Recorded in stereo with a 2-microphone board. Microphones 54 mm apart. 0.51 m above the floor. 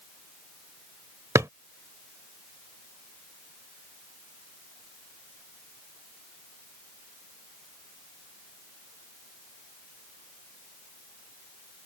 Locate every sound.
1.4 s a drawer: 80° right